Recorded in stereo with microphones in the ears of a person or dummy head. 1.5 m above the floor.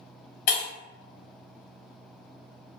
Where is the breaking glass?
55° left (ahead or behind), 1.5 m.